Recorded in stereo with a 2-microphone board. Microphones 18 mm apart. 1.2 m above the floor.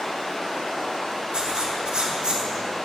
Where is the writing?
55° right (ahead or behind), 3 m.